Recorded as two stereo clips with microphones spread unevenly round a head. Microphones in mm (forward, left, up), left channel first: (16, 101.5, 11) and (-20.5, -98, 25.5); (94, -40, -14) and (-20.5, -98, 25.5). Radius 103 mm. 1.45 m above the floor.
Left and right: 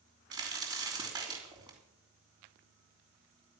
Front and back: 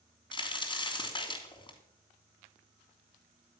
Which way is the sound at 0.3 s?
35° right.